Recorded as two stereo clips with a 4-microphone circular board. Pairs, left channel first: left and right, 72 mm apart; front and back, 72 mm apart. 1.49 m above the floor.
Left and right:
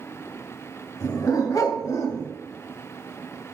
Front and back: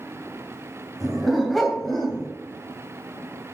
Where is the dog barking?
90° left, 2.5 m; by 2.3 s 80° left, 1.8 m.